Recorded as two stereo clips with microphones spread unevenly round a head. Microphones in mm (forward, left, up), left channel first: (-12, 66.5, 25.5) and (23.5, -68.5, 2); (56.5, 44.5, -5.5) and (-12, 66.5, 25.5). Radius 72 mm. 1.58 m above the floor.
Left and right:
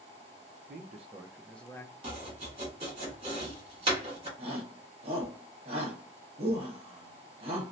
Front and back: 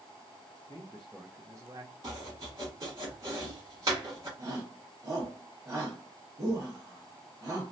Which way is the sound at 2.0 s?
135° right.